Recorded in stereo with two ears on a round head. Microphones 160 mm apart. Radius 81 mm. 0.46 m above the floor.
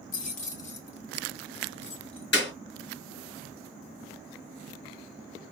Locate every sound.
0.1 s keys jangling: 45° left (ahead or behind), 0.7 m; by 2.2 s 35° left (ahead or behind), 1.6 m
2.3 s a clap: 70° left (ahead or behind), 4 m